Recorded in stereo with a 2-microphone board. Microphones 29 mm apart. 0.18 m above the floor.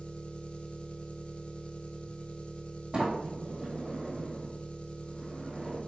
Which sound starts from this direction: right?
A sliding door, at 2.9 s.